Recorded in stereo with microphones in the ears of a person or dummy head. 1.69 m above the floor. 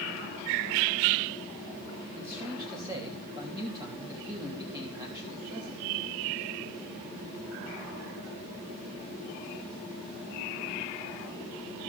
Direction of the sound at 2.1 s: 15° right (ahead or behind).